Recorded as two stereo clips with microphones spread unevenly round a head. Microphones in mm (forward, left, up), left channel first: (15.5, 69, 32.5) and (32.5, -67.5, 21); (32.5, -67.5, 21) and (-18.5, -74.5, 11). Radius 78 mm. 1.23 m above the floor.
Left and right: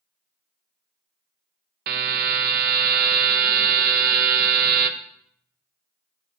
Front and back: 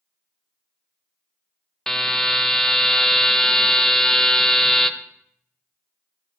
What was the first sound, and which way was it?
A buzzer, 75° right.